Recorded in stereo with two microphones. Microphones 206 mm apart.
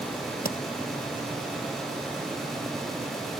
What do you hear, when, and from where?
0.5 s tapping: 45° left (ahead or behind)